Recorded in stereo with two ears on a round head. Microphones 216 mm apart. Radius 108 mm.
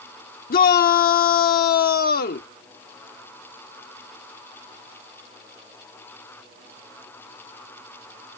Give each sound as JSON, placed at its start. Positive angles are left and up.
{"t": 0.5, "sound": "a shout", "side_deg": 40}